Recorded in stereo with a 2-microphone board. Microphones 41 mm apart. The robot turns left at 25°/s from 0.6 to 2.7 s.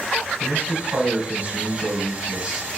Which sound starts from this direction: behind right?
A man speaking, at 0.4 s.